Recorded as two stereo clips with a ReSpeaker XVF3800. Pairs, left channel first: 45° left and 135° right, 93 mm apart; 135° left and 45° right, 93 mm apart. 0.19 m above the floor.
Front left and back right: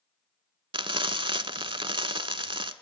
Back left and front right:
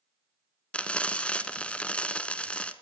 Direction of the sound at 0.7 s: 150° right.